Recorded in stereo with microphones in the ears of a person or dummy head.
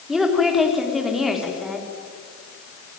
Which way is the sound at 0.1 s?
Centre (ahead or behind).